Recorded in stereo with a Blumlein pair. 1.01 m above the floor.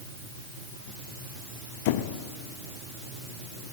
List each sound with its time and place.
1.9 s a squeak: 50° left, 0.5 m